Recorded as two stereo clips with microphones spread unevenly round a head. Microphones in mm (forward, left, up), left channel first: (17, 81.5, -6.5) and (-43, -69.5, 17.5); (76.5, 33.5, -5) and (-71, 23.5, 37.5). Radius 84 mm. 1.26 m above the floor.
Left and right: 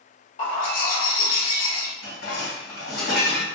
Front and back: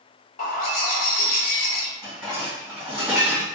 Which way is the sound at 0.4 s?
30° left.